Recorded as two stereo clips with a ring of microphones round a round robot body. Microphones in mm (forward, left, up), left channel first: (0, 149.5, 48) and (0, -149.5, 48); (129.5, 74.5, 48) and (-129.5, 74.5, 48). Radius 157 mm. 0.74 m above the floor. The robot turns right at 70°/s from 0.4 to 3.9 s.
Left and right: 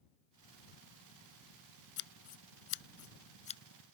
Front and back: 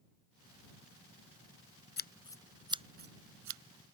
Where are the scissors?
50° left; by 3.6 s 170° left.